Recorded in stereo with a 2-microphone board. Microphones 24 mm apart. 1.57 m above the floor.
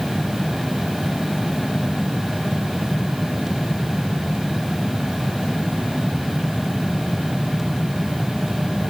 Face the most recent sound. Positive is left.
No sound to turn to.